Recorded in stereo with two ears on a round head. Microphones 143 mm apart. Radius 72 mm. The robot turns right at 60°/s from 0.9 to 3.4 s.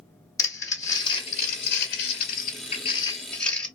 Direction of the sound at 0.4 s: 20° left (ahead or behind).